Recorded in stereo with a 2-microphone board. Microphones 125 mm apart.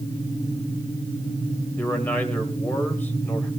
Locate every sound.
1.8 s a man speaking: 15° left (ahead or behind), 2.5 m